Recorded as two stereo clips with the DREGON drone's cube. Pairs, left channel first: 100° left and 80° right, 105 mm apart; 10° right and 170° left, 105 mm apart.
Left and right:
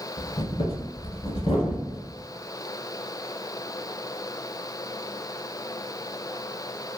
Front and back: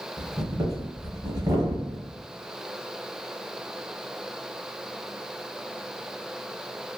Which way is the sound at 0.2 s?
120° left.